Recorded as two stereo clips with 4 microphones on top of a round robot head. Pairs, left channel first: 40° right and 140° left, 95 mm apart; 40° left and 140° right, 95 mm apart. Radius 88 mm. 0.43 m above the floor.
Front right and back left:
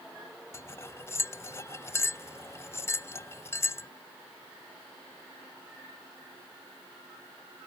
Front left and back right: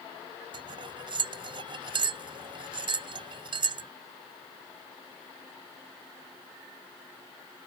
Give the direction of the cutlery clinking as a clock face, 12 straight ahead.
3 o'clock.